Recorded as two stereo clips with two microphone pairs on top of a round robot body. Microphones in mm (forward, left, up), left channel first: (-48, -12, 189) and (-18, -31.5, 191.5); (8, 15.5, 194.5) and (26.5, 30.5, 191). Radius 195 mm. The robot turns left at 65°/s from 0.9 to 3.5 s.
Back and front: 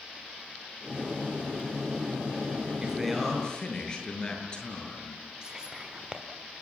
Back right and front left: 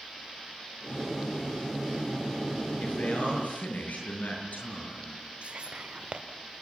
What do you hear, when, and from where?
2.8 s a man speaking: 105° right, 8 m; by 5.2 s 150° right, 8 m
5.4 s whispering: 35° left, 2 m